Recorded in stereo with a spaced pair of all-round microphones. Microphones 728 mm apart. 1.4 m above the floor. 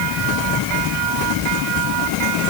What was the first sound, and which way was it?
Only background noise.